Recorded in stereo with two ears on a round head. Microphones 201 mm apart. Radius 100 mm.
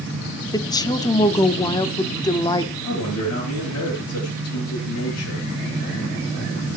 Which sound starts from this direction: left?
A man speaking, at 2.8 s.